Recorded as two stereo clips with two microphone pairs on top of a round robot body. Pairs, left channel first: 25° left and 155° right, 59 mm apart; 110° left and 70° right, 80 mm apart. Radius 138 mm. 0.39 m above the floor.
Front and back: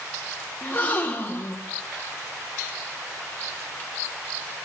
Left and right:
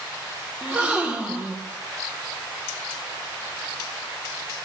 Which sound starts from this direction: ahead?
A gasp, at 0.6 s.